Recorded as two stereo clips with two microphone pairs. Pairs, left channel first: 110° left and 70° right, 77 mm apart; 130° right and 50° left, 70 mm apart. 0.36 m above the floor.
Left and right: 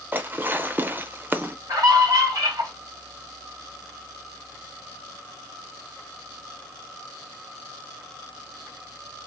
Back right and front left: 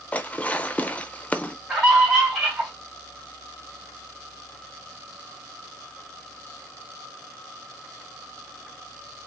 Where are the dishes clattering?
80° right, 0.7 m.